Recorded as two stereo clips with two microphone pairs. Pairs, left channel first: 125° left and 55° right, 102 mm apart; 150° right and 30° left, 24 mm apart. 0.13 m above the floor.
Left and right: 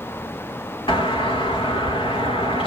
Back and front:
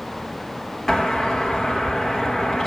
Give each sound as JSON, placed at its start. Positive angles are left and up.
{"t": 0.9, "sound": "a doorbell", "azimuth_deg": 135, "distance_m": 3.5}